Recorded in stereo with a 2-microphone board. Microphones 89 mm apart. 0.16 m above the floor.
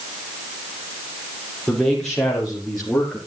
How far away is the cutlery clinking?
No cutlery clinking in this recording.